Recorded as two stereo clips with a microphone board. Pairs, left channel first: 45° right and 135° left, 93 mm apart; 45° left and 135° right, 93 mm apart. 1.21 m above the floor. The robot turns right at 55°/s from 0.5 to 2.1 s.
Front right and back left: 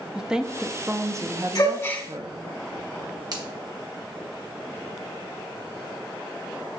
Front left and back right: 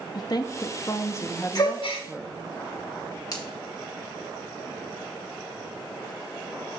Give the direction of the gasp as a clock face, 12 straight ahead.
12 o'clock.